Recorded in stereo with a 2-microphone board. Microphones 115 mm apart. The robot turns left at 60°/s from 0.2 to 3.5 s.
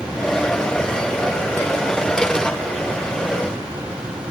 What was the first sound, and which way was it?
Only background noise.